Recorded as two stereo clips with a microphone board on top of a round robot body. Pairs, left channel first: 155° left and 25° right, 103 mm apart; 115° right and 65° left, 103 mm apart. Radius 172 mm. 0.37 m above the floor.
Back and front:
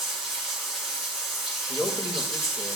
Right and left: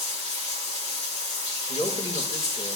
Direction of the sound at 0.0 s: 115° right.